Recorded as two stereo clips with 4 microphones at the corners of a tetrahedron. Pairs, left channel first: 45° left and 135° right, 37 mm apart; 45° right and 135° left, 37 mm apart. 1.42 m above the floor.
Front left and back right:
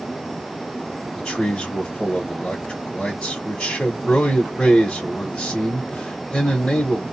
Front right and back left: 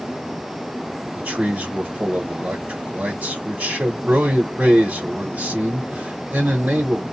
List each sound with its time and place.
1.1 s a man speaking: 115° left, 1.1 m